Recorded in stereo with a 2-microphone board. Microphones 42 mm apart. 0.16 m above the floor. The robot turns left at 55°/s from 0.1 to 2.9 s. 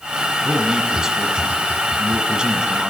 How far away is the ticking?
No ticking in this recording.